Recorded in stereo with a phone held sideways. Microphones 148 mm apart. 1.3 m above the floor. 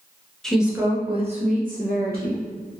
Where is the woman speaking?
5° left (ahead or behind), 0.8 m; by 2.4 s 75° right (ahead or behind), 1.3 m.